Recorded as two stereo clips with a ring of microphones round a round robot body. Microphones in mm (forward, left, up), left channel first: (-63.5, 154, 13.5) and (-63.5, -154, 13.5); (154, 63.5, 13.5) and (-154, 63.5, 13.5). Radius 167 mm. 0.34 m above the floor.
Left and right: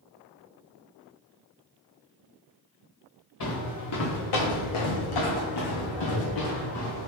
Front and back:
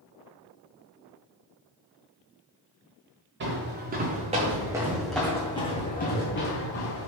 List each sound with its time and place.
3.4 s footsteps: 125° left, 1.8 m; by 7.1 s 40° left, 1.6 m